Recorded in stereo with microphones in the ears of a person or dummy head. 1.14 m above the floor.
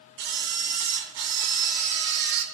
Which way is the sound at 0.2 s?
60° right (ahead or behind).